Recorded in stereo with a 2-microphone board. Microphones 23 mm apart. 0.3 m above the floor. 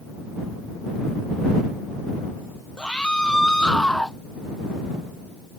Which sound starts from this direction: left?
A scream, at 2.8 s.